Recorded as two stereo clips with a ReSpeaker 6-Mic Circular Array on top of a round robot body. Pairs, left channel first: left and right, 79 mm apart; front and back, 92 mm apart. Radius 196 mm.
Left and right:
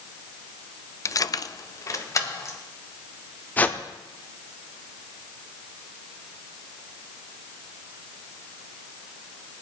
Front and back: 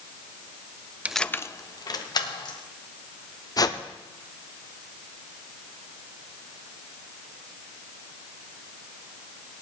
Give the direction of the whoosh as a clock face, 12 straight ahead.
11 o'clock.